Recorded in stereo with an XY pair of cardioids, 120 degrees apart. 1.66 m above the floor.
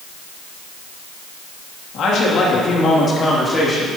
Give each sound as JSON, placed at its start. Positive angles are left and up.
{"t": 1.9, "sound": "a man speaking", "azimuth_deg": 65, "distance_m": 3.0}